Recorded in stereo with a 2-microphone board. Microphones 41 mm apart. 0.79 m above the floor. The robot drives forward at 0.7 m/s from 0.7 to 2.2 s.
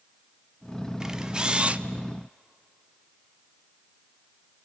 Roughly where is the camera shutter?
Centre.